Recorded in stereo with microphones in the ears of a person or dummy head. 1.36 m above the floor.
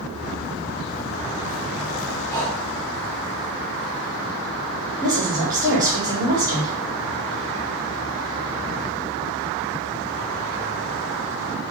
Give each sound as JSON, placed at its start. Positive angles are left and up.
{"t": 0.1, "sound": "footsteps", "side_deg": -20, "distance_m": 1.4}
{"t": 2.3, "sound": "breathing", "side_deg": 15, "distance_m": 2.0}
{"t": 5.0, "sound": "a woman speaking", "side_deg": -20, "distance_m": 2.0}